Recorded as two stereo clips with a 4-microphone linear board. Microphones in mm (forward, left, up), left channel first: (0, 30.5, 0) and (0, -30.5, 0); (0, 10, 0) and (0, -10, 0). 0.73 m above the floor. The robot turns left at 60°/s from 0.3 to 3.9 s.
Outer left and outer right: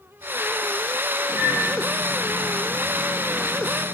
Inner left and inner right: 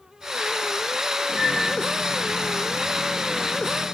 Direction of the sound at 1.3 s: 15° right (ahead or behind).